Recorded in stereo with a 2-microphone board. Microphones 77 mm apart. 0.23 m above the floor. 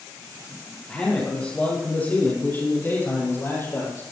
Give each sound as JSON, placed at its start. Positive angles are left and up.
{"t": 0.9, "sound": "a man speaking", "side_deg": 15, "distance_m": 4.0}